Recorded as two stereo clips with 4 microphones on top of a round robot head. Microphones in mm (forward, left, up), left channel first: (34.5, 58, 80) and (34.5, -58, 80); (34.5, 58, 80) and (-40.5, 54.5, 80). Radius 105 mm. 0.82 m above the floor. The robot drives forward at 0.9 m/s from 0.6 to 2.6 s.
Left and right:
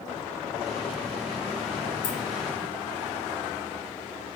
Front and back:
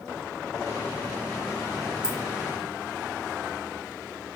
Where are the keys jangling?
100° left, 1.2 m; by 2.2 s 110° left, 1.2 m.